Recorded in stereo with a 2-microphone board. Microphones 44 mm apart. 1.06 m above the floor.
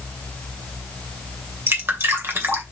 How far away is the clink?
I don't hear a clink.